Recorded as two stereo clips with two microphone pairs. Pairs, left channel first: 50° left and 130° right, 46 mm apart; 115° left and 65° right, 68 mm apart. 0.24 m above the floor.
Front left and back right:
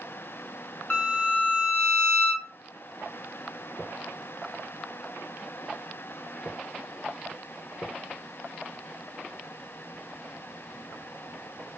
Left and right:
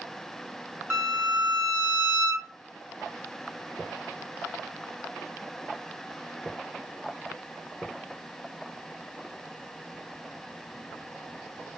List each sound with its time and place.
0.9 s a violin: 10° right, 0.6 m